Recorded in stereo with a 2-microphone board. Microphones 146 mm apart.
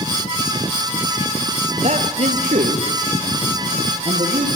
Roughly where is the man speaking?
Right.